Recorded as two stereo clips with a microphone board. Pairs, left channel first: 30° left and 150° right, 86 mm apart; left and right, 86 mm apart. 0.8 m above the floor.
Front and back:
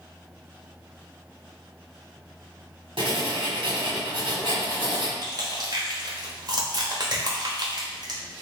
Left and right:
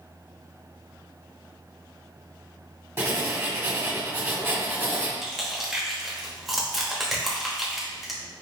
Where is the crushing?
Straight behind, 1.1 m.